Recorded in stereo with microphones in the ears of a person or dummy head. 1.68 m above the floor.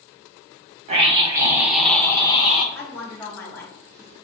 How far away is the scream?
About 0.8 m.